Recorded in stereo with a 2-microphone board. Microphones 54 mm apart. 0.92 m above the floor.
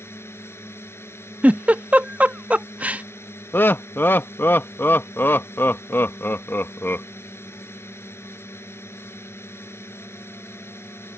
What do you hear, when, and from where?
0.0 s a drone: 50° left (ahead or behind)
1.4 s a giggle: 25° right (ahead or behind)
3.5 s laughter: 40° left (ahead or behind)